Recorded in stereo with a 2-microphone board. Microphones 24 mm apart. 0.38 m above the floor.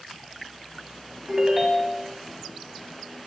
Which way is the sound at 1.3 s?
20° right (ahead or behind).